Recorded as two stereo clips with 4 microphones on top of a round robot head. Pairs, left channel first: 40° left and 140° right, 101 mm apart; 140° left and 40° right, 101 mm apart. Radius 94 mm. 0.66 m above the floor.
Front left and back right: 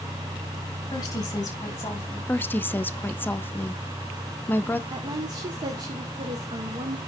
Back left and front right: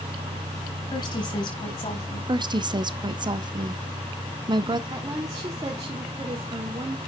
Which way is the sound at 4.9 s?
95° right.